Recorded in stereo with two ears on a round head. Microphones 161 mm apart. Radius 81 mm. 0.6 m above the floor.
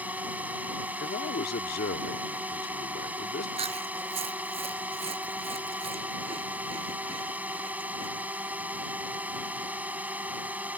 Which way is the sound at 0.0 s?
10° right (ahead or behind).